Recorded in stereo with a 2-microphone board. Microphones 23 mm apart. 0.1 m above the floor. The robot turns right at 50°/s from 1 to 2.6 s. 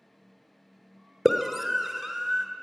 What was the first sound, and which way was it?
A scream, 5° right (ahead or behind).